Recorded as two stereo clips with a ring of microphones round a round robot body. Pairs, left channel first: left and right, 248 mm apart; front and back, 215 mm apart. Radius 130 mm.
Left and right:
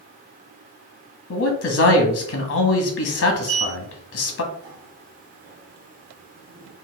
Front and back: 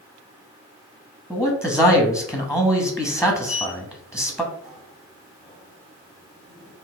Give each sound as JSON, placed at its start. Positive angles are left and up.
{"t": 1.3, "sound": "a man speaking", "azimuth_deg": 95, "distance_m": 0.9}
{"t": 3.4, "sound": "a sliding door", "azimuth_deg": -90, "distance_m": 1.2}